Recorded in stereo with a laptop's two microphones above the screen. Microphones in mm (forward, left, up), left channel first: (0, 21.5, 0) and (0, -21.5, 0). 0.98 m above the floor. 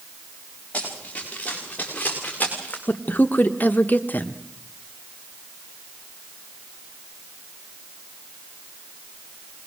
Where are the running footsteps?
35° left (ahead or behind), 8.5 m; by 2.8 s 40° left (ahead or behind), 6 m.